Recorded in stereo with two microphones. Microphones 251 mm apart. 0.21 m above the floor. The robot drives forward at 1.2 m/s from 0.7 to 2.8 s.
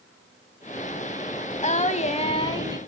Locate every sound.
1.6 s singing: 25° left (ahead or behind), 0.8 m; by 2.8 s 15° left (ahead or behind), 1.4 m